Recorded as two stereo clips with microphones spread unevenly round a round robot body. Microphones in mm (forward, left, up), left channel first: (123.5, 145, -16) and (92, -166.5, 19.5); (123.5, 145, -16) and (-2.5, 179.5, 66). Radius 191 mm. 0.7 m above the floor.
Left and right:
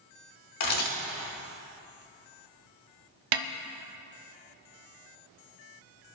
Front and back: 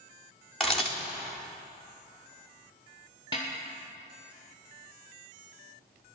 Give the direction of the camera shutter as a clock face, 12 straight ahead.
10 o'clock.